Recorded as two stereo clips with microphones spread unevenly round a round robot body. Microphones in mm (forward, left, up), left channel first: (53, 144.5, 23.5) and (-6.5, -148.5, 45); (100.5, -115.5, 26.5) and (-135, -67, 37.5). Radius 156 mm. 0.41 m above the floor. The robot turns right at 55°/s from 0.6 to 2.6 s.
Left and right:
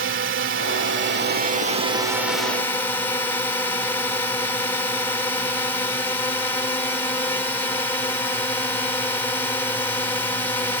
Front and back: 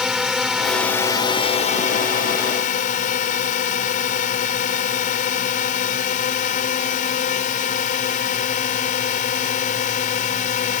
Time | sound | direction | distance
0.0 | a drone | 100° right | ?